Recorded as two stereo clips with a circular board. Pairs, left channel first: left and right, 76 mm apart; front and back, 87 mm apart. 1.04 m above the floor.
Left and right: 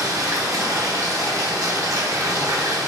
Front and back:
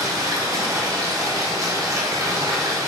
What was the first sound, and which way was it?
Running water, 130° right.